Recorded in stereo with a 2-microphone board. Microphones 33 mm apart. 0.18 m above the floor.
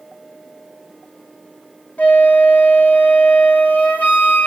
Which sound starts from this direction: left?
A flute, at 2.0 s.